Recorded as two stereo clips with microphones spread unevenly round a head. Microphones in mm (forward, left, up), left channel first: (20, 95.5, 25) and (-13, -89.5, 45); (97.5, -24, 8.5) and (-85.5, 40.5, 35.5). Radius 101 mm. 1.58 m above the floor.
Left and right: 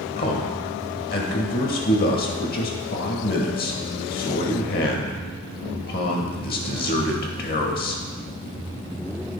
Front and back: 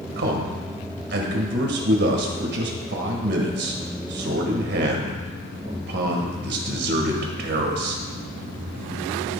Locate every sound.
0.2 s a man speaking: 125° left, 1.5 m